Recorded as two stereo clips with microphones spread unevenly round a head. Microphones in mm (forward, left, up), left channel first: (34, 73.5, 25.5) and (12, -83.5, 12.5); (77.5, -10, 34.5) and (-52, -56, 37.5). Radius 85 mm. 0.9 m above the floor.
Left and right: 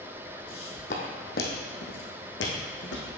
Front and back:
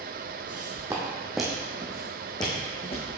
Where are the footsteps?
140° left, 2 m; by 3.1 s 75° left, 3 m.